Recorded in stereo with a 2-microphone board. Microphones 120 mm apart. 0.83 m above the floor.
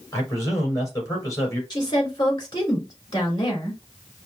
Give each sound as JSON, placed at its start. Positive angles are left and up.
{"t": 0.1, "sound": "a man speaking", "side_deg": 35, "distance_m": 3.5}
{"t": 1.7, "sound": "a woman speaking", "side_deg": 40, "distance_m": 2.5}